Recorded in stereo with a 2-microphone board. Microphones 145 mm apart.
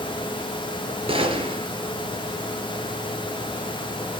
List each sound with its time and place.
1.1 s a gunshot: 35° right (ahead or behind), 3.5 m